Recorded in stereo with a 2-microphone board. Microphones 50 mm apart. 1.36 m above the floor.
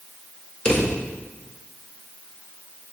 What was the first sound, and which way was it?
A drawer, 20° left (ahead or behind).